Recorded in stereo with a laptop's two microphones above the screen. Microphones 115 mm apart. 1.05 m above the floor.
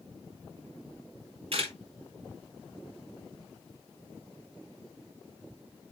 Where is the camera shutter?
55° right (ahead or behind), 2.5 m.